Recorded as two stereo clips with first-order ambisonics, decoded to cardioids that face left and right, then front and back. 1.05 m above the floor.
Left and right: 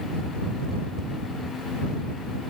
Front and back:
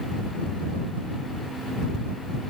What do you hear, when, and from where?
Only background noise.